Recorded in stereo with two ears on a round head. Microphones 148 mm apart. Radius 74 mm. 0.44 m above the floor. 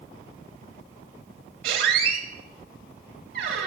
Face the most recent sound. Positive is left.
turn(degrees=-60)  # may be behind; listen again after turning